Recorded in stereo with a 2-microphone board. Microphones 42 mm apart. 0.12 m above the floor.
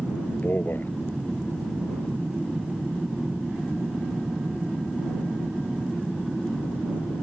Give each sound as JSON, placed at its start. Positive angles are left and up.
{"t": 0.3, "sound": "a man speaking", "side_deg": 50}